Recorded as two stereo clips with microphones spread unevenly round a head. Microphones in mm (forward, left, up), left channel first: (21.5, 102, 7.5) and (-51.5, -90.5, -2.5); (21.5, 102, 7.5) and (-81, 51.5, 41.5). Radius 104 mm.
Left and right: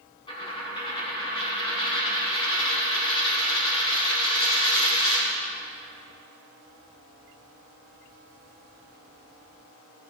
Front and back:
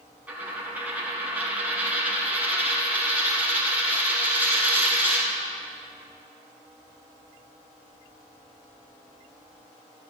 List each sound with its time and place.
0.3 s a dropped coin: 135° left, 4 m